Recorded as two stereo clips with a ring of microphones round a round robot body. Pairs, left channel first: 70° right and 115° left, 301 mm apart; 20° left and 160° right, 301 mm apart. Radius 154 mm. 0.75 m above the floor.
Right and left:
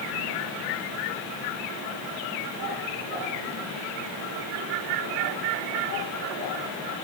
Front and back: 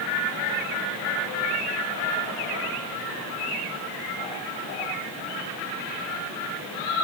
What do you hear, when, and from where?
Only background noise.